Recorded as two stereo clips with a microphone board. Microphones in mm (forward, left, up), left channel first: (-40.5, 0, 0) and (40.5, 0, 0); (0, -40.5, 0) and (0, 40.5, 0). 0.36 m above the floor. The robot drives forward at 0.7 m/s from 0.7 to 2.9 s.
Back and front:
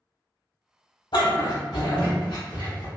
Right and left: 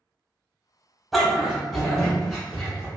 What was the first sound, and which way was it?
A dog barking, straight behind.